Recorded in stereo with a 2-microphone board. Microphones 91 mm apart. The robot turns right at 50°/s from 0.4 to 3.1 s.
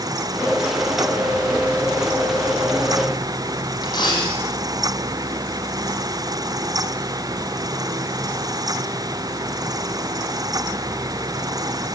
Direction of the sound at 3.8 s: 45° left (ahead or behind).